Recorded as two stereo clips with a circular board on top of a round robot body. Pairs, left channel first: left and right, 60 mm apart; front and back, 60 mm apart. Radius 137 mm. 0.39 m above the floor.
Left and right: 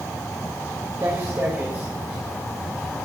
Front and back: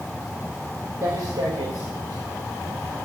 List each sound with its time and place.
1.0 s footsteps: 145° right, 3.5 m; by 3.0 s 165° left, 2.5 m